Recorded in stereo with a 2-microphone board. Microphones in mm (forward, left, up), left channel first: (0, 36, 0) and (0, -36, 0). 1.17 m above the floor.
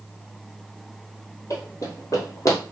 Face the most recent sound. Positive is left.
turn(degrees=45)  # may be behind; listen again after turning